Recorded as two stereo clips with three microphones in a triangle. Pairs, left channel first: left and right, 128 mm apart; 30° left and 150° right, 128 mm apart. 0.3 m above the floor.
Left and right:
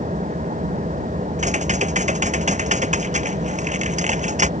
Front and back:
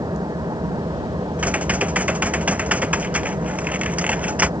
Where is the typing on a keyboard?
70° right.